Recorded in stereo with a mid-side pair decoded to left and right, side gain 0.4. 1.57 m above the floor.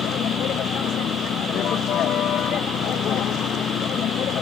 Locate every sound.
0.0 s a vehicle: 70° left